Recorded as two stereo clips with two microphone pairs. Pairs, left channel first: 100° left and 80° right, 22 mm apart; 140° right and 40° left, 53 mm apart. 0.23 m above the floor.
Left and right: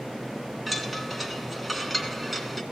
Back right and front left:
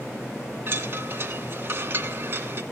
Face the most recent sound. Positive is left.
turn(degrees=5)